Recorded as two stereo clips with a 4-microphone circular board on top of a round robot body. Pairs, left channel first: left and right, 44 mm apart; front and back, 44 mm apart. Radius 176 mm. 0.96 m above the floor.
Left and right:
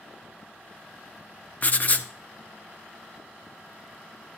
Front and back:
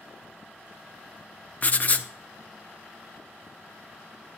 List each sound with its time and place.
1.6 s writing: 45° left, 0.9 m